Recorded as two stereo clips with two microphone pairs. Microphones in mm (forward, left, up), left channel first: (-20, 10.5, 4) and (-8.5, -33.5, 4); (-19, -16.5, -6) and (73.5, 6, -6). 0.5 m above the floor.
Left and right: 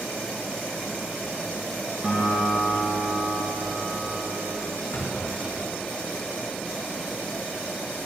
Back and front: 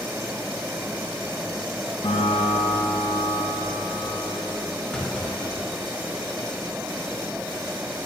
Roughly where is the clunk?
Left.